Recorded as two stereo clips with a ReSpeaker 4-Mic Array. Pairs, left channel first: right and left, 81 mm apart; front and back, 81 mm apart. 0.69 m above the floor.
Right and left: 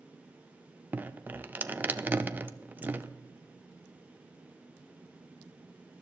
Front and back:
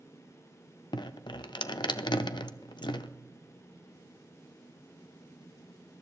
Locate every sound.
0.9 s dripping: 25° left, 0.5 m